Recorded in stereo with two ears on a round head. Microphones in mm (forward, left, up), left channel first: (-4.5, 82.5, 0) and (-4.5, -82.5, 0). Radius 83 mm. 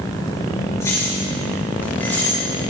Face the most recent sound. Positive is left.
turn(degrees=10)  # may be behind; listen again after turning